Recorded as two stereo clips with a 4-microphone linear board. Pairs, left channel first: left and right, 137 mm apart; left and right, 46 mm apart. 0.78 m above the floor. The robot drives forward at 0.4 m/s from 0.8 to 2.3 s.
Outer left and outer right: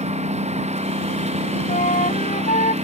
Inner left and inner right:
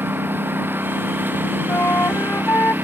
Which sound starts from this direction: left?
A flute, at 1.7 s.